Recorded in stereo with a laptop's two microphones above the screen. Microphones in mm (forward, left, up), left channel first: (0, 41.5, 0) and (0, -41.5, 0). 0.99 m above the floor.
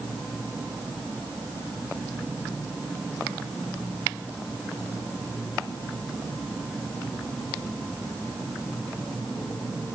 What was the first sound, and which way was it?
Only background noise.